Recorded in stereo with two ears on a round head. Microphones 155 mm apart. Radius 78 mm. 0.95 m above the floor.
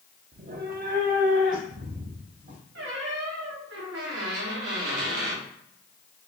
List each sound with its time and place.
0.3 s a cat meowing: 50° right (ahead or behind), 0.5 m
2.8 s a squeak: 80° right, 1.2 m